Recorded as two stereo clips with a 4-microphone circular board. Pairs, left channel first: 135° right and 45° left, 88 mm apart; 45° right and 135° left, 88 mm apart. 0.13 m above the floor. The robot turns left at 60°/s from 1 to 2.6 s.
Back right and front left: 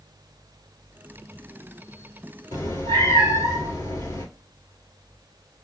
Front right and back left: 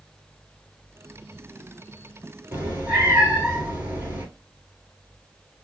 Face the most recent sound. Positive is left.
turn(degrees=-170)